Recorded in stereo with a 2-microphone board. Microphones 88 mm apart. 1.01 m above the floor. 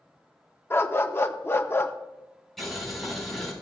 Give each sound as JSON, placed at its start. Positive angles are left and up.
{"t": 0.7, "sound": "a dog barking", "side_deg": 25, "distance_m": 0.6}
{"t": 2.6, "sound": "boiling", "side_deg": 5, "distance_m": 5.0}